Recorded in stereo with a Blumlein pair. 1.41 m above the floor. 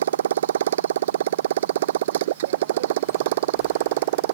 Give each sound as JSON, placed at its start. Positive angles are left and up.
{"t": 0.0, "sound": "a motorcycle", "azimuth_deg": -60}